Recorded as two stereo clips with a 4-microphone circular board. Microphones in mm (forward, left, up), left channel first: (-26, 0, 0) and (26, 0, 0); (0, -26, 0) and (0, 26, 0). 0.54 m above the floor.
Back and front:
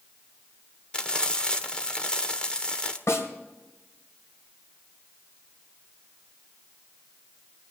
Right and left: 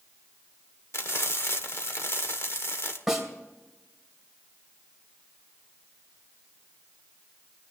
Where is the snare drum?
175° left, 2.5 m.